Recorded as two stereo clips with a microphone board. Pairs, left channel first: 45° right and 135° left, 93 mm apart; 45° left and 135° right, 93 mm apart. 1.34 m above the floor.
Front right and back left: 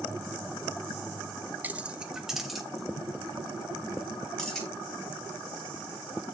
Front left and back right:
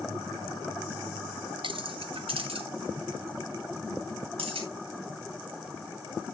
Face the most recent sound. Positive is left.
turn(degrees=-130)